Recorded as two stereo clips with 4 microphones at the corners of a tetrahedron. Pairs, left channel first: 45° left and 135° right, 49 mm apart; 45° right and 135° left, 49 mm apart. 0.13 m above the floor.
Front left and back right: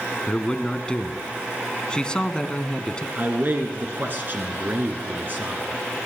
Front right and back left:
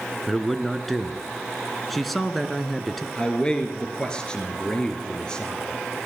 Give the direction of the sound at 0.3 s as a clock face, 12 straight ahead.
11 o'clock.